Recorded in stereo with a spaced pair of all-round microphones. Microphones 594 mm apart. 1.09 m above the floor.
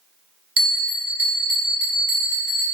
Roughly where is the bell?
Right.